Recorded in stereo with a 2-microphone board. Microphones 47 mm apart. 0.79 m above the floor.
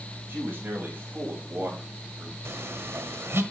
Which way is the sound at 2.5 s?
65° right (ahead or behind).